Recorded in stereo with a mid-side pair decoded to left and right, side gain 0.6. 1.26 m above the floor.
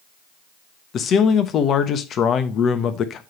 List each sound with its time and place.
0.9 s a man speaking: 50° left, 1.1 m